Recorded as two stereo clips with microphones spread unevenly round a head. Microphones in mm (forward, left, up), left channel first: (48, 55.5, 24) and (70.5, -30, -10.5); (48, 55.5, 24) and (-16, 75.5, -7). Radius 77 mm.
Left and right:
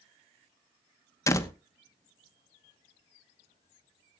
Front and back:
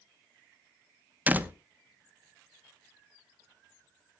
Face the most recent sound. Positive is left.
turn(degrees=80)